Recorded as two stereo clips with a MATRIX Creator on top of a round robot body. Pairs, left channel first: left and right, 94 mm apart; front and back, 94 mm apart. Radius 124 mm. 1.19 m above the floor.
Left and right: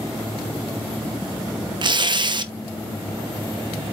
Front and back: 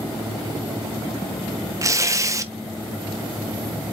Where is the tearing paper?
125° right, 1.2 m.